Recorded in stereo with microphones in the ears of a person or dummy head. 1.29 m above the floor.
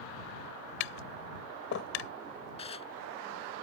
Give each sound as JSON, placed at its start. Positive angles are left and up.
{"t": 0.8, "sound": "tapping", "side_deg": 65}
{"t": 2.6, "sound": "dishes clattering", "side_deg": 30}